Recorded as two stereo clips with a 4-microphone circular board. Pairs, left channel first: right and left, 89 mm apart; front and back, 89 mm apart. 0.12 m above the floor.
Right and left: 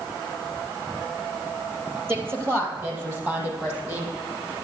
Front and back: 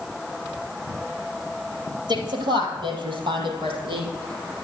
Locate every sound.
2.1 s a woman speaking: 150° left, 3.5 m; by 4.1 s 155° left, 5 m